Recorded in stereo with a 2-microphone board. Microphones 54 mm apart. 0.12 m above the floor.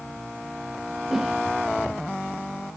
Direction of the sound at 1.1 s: 5° right (ahead or behind).